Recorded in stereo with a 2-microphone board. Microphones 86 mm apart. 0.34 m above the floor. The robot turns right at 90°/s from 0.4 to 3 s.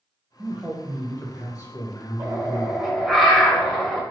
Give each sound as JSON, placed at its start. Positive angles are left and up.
{"t": 0.4, "sound": "a man speaking", "azimuth_deg": -30, "distance_m": 1.3}
{"t": 2.2, "sound": "a bird", "azimuth_deg": -70, "distance_m": 1.5}